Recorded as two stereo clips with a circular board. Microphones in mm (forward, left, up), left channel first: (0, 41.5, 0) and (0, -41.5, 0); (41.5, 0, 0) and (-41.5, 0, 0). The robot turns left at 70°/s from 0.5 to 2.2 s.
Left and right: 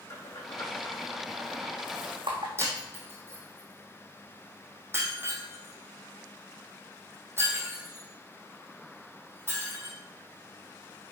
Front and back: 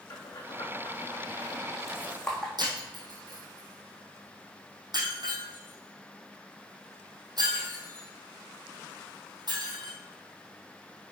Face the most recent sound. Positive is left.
turn(degrees=-150)